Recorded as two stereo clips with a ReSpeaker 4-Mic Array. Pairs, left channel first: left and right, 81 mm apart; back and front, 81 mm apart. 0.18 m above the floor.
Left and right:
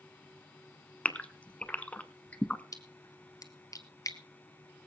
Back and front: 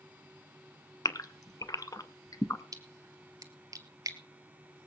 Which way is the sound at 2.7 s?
45° left.